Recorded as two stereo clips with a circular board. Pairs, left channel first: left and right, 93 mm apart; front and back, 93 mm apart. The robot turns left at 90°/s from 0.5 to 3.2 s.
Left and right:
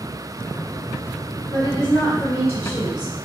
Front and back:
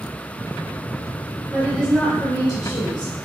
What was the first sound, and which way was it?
A woman speaking, 110° left.